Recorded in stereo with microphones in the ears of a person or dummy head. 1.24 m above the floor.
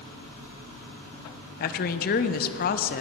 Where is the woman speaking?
45° left (ahead or behind), 0.7 m.